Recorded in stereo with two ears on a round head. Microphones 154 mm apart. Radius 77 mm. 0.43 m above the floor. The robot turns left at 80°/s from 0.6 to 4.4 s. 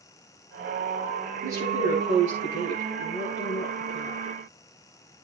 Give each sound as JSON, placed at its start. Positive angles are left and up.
{"t": 1.4, "sound": "a woman speaking", "azimuth_deg": -15, "distance_m": 9.0}